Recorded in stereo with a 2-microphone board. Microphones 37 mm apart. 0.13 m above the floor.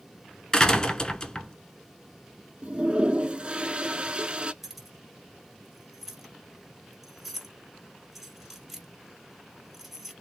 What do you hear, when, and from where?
0.5 s a door slam: 20° left (ahead or behind), 0.8 m
2.6 s a toilet flushing: 25° right (ahead or behind), 0.6 m
4.6 s keys jangling: centre (ahead or behind), 2 m